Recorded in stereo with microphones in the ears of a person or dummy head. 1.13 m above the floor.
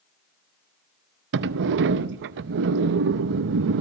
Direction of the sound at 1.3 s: 55° right (ahead or behind).